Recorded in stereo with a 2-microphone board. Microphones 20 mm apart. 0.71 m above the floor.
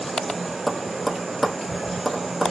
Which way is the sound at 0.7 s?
10° right (ahead or behind).